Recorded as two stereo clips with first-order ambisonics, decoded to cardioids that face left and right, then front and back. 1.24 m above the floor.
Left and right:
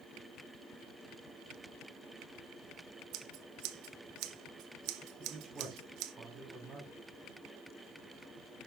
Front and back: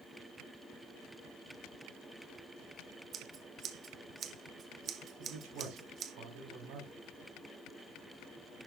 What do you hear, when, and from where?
3.1 s scissors: 120° right, 0.8 m
5.2 s a man speaking: 160° right, 3.5 m